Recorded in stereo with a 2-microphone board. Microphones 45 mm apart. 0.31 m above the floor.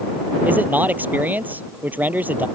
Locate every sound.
0.5 s a man speaking: 40° right (ahead or behind)